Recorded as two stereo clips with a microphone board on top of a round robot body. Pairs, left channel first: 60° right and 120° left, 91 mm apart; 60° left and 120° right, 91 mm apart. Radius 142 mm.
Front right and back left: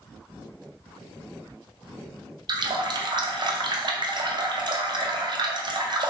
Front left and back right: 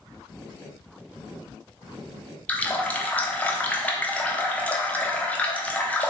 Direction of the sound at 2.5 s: 130° left.